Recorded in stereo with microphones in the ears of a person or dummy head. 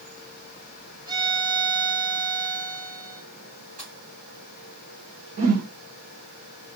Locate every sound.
1.1 s a violin: 20° right (ahead or behind), 2.0 m
3.8 s a pop: 40° right (ahead or behind), 4 m
5.4 s a whoosh: 45° right (ahead or behind), 1.5 m